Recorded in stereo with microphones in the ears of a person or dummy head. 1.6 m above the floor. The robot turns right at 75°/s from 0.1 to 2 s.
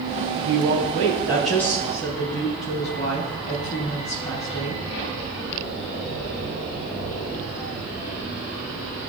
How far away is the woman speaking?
About 3 m.